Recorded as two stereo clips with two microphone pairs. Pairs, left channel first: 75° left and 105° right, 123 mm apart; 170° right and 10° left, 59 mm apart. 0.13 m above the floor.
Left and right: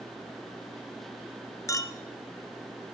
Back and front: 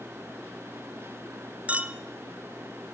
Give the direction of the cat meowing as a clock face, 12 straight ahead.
No cat meowing in this recording.